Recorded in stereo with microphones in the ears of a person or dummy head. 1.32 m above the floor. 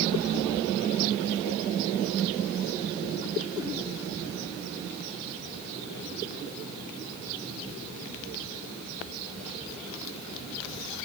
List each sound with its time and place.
Only background noise.